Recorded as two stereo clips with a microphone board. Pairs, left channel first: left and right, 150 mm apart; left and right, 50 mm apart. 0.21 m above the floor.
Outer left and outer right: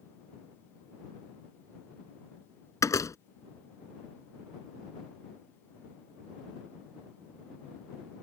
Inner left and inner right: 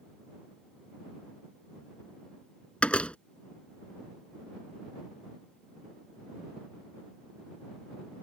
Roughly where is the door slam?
Left.